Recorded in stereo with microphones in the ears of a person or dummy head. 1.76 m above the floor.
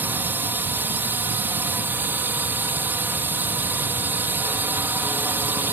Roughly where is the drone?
Centre.